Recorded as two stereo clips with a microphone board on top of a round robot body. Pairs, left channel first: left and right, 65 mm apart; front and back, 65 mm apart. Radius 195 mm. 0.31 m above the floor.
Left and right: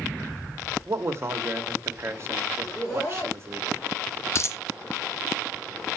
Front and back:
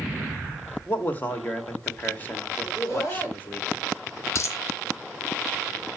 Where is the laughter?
25° left, 4 m.